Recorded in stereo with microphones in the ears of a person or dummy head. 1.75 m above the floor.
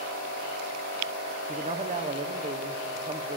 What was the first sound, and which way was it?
A man speaking, 30° right (ahead or behind).